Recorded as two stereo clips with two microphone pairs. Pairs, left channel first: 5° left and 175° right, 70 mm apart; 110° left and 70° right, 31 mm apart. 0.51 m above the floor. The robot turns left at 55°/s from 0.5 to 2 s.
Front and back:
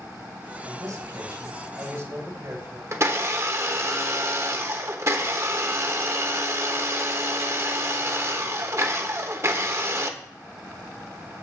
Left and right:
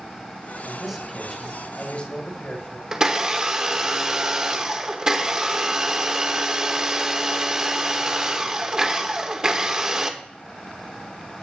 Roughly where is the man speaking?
Behind right.